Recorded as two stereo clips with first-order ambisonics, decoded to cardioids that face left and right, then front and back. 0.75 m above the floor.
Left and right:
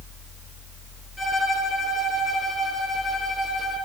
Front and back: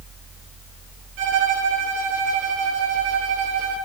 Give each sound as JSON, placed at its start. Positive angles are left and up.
{"t": 1.2, "sound": "a violin", "azimuth_deg": 170, "distance_m": 8.5}